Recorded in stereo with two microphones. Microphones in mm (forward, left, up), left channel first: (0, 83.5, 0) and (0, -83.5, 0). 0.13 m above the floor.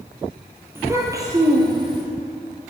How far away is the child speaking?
About 2.5 m.